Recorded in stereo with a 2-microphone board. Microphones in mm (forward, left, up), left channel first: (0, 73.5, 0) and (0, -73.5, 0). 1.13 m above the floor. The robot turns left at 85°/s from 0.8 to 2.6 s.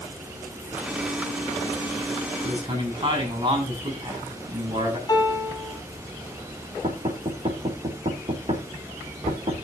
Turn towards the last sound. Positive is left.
turn(degrees=-50)  # may be behind; listen again after turning